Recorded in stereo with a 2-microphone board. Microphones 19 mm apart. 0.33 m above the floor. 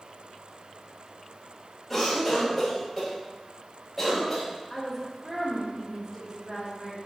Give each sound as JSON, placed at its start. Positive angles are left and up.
{"t": 1.9, "sound": "a cough", "side_deg": 5, "distance_m": 1.7}
{"t": 4.7, "sound": "a woman speaking", "side_deg": 10, "distance_m": 1.1}